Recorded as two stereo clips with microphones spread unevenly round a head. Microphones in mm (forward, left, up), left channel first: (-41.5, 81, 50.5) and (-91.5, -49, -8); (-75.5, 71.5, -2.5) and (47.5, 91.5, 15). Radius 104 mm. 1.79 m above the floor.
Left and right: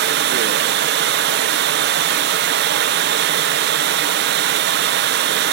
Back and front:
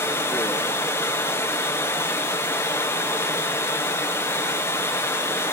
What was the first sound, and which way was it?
Running water, 90° right.